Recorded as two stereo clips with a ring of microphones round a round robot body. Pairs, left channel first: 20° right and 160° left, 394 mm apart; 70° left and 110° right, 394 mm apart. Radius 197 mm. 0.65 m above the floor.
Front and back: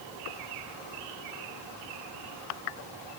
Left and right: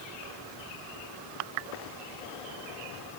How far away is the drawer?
No drawer in this recording.